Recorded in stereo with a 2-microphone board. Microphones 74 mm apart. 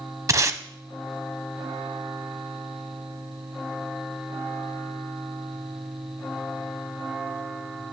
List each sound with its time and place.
0.3 s tape being pulled: 45° right (ahead or behind), 0.6 m